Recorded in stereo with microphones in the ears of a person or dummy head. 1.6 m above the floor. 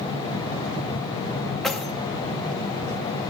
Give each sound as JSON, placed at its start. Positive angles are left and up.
{"t": 1.6, "sound": "keys jangling", "side_deg": 5, "distance_m": 1.9}